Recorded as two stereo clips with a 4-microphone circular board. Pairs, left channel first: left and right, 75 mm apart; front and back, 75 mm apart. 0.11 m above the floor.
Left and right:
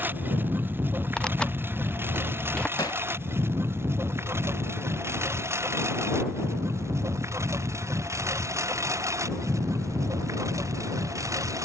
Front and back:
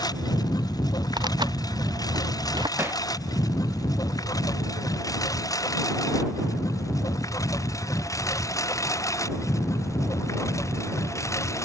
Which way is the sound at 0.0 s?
25° right.